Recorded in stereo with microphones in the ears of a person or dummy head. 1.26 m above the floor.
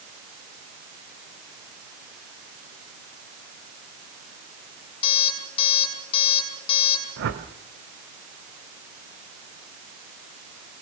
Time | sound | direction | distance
5.0 | an alarm clock | 35° left (ahead or behind) | 4.5 m
7.2 | a whoosh | 65° right (ahead or behind) | 1.9 m